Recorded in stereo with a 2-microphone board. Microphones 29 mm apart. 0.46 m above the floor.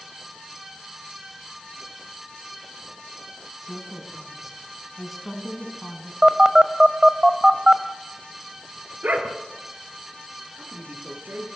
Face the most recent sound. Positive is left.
turn(degrees=-85)